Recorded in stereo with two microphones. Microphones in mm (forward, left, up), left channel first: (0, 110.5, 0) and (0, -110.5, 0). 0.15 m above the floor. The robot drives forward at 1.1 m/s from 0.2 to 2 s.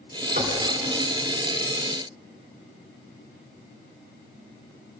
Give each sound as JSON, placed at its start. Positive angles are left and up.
{"t": 0.4, "sound": "knocking", "side_deg": -35, "distance_m": 1.6}